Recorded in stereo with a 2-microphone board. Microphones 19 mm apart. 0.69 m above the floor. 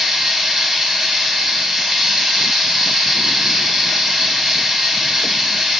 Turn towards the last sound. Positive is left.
turn(degrees=-20)  # may be behind; listen again after turning